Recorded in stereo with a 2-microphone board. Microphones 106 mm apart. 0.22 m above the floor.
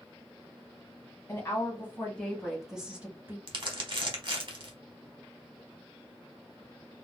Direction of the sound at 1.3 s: 30° left (ahead or behind).